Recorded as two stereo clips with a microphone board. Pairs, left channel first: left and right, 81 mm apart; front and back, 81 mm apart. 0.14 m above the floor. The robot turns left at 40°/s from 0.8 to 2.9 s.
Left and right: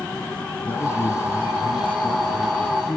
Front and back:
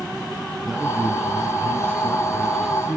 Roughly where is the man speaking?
Left.